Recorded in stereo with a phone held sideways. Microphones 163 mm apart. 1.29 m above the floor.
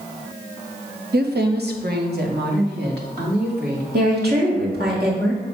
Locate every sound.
1.1 s a woman speaking: 80° right, 0.7 m
3.9 s a woman speaking: 80° right, 1.9 m